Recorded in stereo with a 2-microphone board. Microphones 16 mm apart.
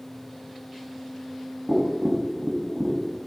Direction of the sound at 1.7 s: 50° right (ahead or behind).